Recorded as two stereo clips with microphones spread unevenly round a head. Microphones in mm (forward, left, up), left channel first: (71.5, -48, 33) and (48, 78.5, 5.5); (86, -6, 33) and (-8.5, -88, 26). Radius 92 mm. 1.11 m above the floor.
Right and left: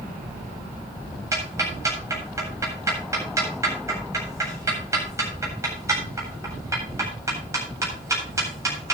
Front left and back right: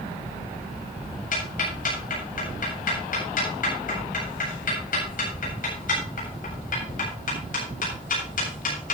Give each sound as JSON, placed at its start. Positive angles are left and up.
{"t": 1.3, "sound": "ticking", "azimuth_deg": 35, "distance_m": 8.0}